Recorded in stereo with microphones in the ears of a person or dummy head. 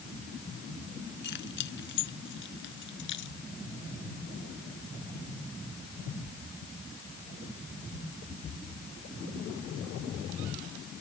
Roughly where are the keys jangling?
Left.